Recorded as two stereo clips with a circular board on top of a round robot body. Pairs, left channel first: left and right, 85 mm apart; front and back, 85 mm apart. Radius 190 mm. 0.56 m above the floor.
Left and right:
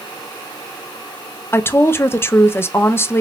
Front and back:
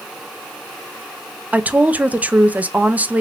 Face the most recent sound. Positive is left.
turn(degrees=125)